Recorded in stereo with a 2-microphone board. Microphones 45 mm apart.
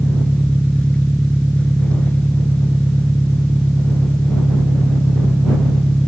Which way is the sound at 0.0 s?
25° left (ahead or behind).